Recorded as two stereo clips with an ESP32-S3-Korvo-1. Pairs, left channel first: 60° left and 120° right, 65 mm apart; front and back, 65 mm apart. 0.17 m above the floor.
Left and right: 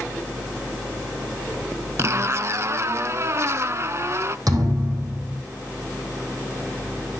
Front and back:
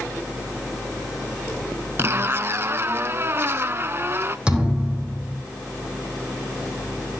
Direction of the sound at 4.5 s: 105° right.